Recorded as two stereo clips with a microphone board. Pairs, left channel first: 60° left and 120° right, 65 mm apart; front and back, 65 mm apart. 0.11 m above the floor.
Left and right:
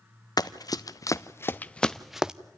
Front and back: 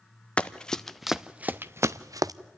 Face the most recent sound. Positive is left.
turn(degrees=165)